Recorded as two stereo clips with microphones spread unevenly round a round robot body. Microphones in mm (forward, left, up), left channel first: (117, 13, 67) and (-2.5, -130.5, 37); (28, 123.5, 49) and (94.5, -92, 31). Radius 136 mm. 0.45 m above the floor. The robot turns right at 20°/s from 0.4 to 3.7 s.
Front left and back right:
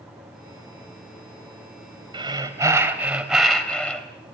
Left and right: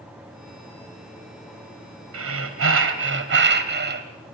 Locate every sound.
2.1 s breathing: 70° right, 2.5 m; by 4.1 s 35° right, 2.5 m